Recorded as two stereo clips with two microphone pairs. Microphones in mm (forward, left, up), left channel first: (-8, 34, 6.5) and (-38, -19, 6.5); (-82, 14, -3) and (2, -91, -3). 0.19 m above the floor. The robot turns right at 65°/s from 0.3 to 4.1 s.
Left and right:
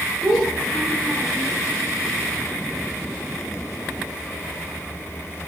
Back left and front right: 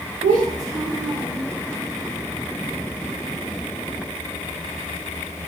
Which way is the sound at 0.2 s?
50° right.